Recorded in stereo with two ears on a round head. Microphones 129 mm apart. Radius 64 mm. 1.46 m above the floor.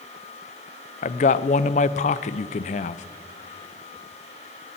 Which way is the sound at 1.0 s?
50° left (ahead or behind).